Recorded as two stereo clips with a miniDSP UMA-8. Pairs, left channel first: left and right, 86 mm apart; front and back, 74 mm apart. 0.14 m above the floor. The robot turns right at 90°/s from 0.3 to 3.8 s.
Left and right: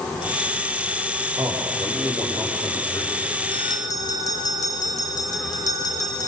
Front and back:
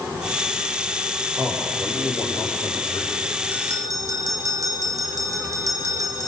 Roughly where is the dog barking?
No dog barking in this recording.